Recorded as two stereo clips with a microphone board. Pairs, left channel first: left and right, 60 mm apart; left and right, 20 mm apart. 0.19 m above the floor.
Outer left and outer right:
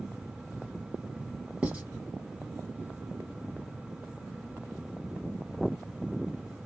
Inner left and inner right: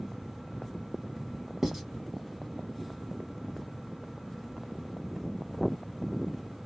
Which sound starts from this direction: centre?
Writing, at 1.6 s.